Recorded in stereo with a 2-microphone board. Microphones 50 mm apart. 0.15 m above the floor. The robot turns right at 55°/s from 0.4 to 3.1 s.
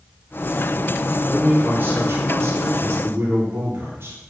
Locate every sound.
1.3 s a man speaking: 160° right, 2.5 m; by 4.2 s 60° right, 2.5 m